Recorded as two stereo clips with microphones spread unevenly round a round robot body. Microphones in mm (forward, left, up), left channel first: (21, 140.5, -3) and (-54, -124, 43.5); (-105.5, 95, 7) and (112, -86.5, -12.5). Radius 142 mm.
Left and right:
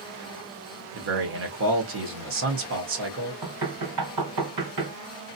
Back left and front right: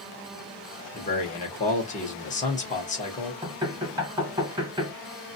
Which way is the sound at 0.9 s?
155° right.